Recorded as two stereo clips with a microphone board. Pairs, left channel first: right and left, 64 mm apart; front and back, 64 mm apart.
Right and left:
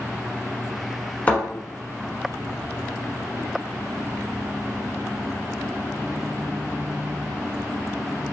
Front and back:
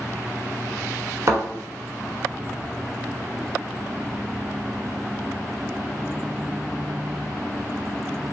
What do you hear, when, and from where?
1.3 s a thud: 150° right, 1.1 m